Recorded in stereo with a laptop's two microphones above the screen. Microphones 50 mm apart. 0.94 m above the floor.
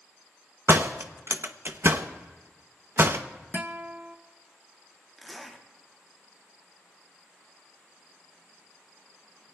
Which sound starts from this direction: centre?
A zipper, at 5.2 s.